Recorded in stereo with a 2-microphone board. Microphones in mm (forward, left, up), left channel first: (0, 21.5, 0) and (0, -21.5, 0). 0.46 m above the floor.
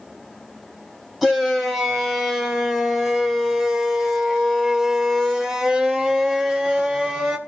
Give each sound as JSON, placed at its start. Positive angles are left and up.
{"t": 1.2, "sound": "a shout", "side_deg": -5, "distance_m": 3.5}